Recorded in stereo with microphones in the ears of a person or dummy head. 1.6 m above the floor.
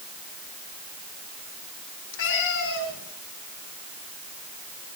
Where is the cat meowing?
70° left (ahead or behind), 6.5 m.